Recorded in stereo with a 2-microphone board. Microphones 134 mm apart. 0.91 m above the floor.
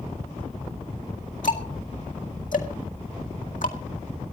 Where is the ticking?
70° left (ahead or behind), 2 m.